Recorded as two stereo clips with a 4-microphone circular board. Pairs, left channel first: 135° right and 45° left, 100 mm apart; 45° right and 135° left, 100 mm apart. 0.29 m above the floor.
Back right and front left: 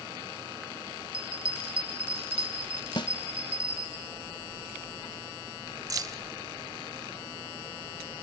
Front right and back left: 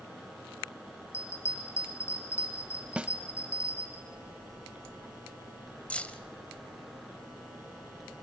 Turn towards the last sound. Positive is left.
turn(degrees=25)